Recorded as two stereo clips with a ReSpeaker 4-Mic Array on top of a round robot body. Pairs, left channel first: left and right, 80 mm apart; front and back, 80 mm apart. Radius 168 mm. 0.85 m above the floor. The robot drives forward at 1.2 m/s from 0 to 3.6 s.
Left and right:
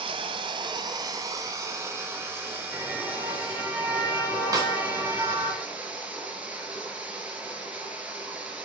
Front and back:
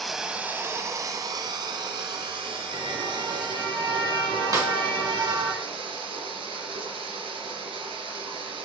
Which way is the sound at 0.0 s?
85° right.